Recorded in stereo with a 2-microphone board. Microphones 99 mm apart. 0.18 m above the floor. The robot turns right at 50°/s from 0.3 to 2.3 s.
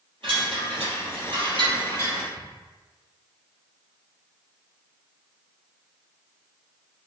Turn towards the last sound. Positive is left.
turn(degrees=-45)  # may be behind; listen again after turning